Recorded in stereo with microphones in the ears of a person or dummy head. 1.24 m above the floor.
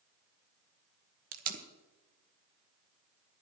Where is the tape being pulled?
45° right (ahead or behind), 1.3 m.